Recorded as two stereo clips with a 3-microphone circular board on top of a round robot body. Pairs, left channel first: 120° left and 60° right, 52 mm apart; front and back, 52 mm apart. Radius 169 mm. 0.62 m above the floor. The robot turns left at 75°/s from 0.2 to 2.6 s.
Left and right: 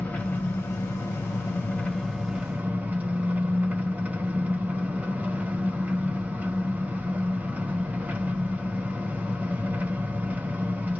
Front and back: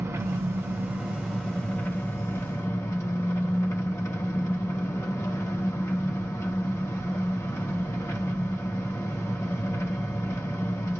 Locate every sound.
0.0 s an engine running: 175° left, 1.5 m; by 11.0 s 5° right, 1.5 m